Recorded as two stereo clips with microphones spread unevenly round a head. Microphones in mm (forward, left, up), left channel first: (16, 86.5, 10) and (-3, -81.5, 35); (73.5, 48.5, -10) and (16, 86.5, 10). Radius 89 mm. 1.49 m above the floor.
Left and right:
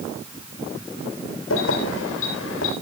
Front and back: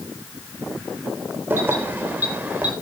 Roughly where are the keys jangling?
Left.